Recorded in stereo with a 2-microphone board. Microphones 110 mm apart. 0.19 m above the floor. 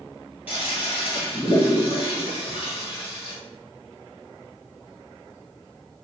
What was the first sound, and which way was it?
A toilet flushing, 15° right (ahead or behind).